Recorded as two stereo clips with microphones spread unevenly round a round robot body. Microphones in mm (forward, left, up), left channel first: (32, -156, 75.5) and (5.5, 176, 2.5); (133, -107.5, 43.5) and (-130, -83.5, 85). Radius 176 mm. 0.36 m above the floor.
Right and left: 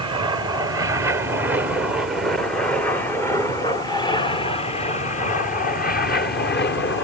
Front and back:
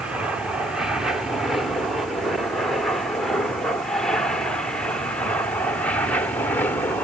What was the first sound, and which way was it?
An aircraft, 75° left.